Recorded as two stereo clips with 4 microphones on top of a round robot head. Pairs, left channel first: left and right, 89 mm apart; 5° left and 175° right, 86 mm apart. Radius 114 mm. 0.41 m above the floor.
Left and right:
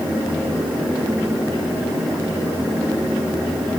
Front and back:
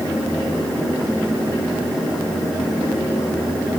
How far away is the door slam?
No door slam in this recording.